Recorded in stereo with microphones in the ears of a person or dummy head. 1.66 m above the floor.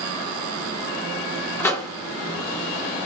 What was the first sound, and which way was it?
A microwave, 10° left (ahead or behind).